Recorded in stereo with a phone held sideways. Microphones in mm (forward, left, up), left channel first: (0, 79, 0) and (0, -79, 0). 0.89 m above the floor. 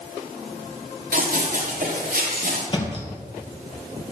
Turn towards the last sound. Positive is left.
turn(degrees=35)  # may be behind; listen again after turning